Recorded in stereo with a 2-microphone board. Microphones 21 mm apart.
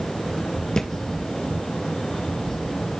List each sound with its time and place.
0.8 s a thud: 40° left (ahead or behind), 1.4 m